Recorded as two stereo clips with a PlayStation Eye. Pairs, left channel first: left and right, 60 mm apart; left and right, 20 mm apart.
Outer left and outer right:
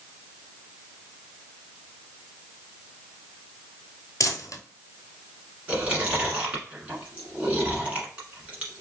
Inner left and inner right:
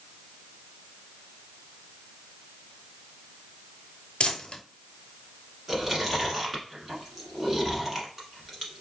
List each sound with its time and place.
4.2 s crumpling: 65° left (ahead or behind), 0.8 m
5.7 s chewing: 20° right (ahead or behind), 1.2 m